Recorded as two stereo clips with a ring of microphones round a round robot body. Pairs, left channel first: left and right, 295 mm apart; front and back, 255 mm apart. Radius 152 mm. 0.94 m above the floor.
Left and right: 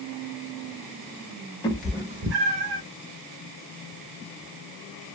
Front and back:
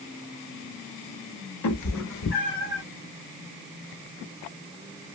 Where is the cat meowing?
15° left, 1.0 m; by 2.8 s 80° right, 1.2 m.